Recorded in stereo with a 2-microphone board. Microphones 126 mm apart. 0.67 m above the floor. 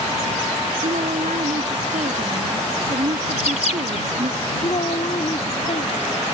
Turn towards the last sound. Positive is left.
turn(degrees=55)  # may be behind; listen again after turning